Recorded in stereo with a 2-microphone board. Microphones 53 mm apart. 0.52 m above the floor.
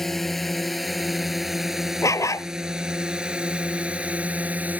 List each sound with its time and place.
0.0 s a drone: 5° left (ahead or behind); by 4.8 s 30° right (ahead or behind)
2.0 s a dog barking: 80° left